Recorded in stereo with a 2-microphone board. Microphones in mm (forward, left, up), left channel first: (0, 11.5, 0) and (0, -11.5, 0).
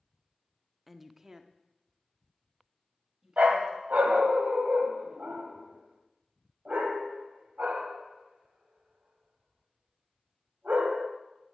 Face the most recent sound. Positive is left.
turn(degrees=-80)